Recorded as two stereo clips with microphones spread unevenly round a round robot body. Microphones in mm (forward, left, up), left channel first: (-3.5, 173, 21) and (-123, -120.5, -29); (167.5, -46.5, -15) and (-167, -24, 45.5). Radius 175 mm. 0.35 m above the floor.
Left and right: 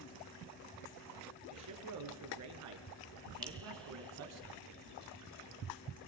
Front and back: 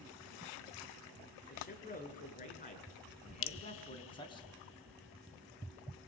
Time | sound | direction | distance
1.5 | a man speaking | 70° right | 5 m
3.4 | dripping | 25° right | 0.6 m